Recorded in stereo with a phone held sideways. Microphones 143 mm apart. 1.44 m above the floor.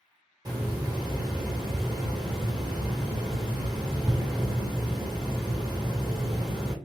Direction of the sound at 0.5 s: 25° right (ahead or behind).